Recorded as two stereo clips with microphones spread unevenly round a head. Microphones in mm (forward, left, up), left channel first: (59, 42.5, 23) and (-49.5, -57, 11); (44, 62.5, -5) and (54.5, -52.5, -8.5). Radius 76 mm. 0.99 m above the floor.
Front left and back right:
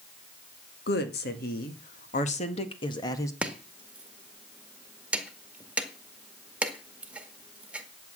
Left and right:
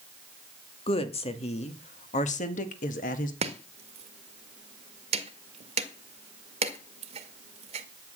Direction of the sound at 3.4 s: 55° right.